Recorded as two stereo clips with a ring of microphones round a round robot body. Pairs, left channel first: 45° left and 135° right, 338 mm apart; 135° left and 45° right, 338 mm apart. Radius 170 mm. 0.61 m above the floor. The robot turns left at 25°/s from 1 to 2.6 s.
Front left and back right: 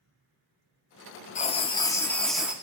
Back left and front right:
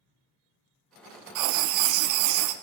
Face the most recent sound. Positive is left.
turn(degrees=-50)